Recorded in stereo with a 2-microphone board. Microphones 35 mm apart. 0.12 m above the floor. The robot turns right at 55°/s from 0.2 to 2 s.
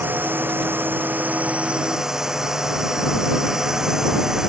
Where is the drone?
110° right; by 4.5 s 15° right.